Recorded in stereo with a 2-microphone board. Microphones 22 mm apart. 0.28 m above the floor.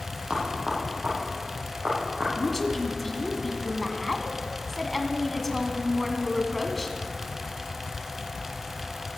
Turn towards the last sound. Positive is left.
turn(degrees=15)  # may be behind; listen again after turning